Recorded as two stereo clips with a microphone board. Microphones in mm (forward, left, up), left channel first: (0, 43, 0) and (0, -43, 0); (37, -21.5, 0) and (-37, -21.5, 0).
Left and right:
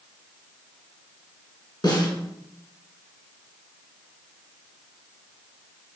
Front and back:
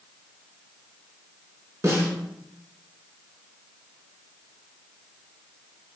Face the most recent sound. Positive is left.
turn(degrees=130)